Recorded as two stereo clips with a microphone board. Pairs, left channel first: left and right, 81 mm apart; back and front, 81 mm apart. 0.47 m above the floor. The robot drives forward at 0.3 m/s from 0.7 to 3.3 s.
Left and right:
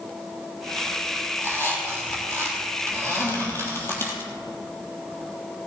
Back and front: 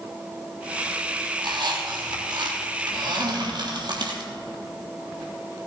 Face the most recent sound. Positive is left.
turn(degrees=30)